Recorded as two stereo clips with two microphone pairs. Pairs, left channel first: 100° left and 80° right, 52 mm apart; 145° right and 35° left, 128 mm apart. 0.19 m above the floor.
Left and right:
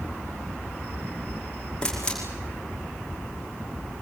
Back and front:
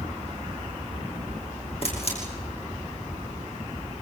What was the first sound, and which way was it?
A camera shutter, 175° left.